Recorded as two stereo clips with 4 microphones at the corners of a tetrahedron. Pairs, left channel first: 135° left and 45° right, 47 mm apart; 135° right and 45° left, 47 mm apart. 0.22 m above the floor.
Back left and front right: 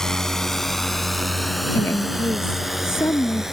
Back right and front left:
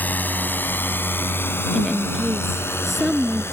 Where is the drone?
150° right; by 3.5 s 125° right.